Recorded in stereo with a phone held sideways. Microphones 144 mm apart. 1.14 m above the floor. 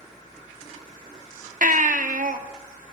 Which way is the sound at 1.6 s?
70° right (ahead or behind).